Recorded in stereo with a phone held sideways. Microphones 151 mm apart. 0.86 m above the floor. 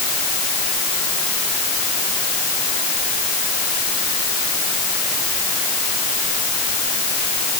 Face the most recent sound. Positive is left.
No sound to turn to.